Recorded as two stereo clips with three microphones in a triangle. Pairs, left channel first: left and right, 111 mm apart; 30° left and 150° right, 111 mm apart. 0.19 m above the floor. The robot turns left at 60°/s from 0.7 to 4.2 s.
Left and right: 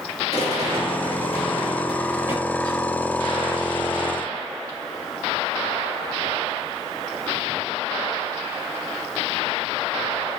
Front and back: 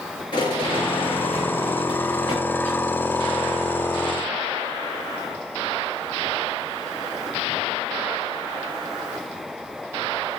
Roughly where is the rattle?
Left.